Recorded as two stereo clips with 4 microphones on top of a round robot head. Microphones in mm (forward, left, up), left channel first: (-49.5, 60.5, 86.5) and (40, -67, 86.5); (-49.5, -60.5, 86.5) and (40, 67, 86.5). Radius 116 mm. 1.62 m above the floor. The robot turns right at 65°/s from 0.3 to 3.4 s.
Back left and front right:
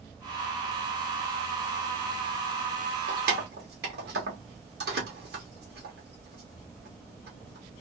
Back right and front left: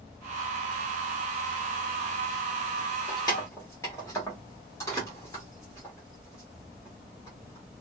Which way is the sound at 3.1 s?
75° right.